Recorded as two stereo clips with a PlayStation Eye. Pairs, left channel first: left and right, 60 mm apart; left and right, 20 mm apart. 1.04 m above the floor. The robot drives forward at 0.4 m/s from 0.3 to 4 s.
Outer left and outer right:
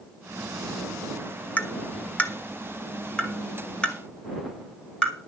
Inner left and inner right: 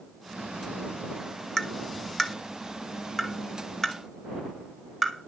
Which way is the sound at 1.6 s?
25° left (ahead or behind).